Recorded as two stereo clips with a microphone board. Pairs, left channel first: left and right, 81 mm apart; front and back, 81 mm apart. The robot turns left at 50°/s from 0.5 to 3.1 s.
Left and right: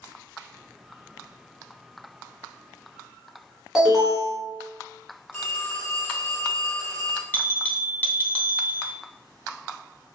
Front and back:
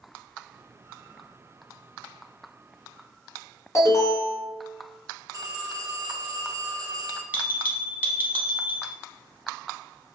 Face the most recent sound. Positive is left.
turn(degrees=135)